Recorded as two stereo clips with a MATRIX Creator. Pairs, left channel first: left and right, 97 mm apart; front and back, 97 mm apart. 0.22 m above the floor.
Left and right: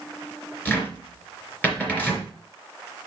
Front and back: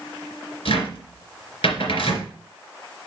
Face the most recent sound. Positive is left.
turn(degrees=20)